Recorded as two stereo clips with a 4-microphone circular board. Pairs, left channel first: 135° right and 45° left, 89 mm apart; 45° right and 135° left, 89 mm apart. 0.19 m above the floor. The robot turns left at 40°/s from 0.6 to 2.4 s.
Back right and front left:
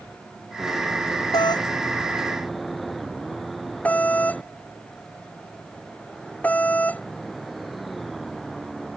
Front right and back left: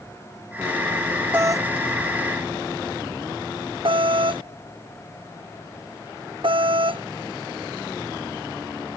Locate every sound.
1.3 s a doorbell: 165° right; by 7.0 s 150° left